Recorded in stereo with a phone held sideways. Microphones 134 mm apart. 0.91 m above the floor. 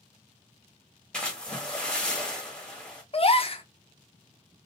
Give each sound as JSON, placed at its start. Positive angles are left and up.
{"t": 1.1, "sound": "a splash", "side_deg": 5, "distance_m": 1.3}
{"t": 3.1, "sound": "a gasp", "side_deg": 45, "distance_m": 0.6}